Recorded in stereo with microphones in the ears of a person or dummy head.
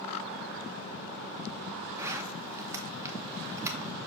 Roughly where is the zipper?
Centre.